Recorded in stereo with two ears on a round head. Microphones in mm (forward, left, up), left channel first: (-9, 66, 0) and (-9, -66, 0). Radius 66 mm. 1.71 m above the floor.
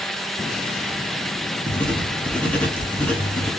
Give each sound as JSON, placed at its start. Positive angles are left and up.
{"t": 1.7, "sound": "writing", "side_deg": 10, "distance_m": 1.2}